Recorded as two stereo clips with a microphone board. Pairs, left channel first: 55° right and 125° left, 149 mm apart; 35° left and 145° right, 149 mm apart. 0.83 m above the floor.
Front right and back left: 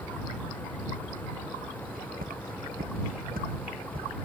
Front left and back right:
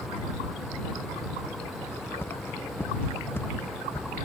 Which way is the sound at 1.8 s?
110° left.